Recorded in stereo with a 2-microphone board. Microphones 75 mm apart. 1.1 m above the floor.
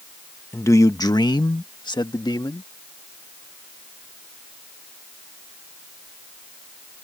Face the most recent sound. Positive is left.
turn(degrees=65)  # may be behind; listen again after turning